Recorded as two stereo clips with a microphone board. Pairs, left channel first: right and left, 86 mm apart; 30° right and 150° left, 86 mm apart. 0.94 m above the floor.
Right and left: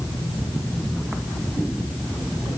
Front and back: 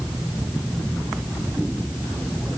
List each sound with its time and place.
Only background noise.